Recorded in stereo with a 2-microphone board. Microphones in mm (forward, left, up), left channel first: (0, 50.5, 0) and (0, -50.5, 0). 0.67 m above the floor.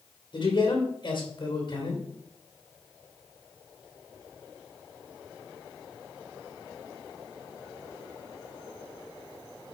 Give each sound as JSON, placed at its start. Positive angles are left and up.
{"t": 0.3, "sound": "a man speaking", "side_deg": 55, "distance_m": 3.0}